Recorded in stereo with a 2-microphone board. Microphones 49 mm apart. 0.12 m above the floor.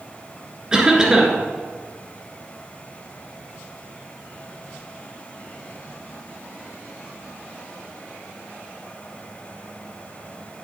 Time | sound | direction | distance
0.7 | a cough | 15° right (ahead or behind) | 2 m